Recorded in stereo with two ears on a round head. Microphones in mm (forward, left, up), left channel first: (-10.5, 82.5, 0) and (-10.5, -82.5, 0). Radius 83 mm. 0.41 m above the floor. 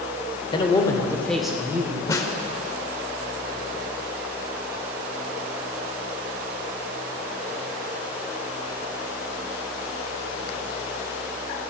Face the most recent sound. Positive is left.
turn(degrees=20)  # may be behind; listen again after turning